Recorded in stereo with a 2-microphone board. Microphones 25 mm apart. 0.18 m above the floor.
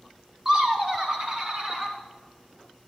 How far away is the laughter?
About 1.1 m.